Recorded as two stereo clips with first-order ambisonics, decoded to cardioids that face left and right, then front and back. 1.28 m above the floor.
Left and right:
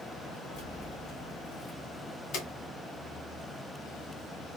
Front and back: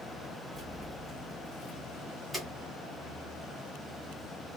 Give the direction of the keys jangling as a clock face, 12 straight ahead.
9 o'clock.